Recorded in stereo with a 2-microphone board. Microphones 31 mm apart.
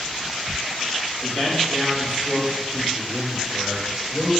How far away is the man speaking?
About 3 m.